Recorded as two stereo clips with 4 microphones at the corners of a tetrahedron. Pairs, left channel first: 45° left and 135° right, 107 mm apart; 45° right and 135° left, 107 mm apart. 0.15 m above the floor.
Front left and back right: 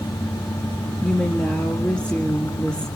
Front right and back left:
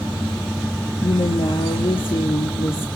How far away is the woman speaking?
About 4 m.